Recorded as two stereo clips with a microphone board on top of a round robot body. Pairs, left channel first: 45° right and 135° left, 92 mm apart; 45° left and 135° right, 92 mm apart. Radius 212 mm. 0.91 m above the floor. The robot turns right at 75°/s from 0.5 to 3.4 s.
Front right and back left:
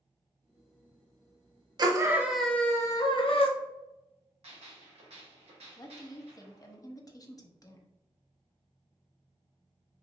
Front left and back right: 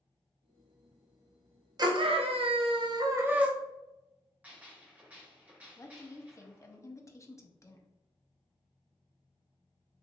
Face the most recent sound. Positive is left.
turn(degrees=-5)